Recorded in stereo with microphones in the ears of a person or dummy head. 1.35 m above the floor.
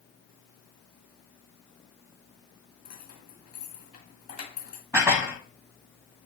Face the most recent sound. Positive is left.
turn(degrees=-15)  # may be behind; listen again after turning